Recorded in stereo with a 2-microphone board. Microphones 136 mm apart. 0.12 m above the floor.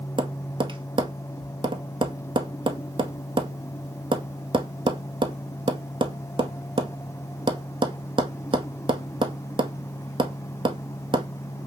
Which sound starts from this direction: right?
Tapping, at 0.2 s.